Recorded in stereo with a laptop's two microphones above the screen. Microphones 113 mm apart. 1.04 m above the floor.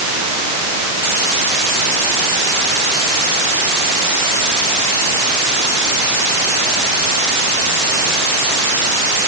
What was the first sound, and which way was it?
Only background noise.